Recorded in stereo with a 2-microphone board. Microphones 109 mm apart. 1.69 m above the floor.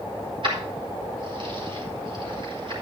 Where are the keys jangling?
50° right (ahead or behind), 4 m.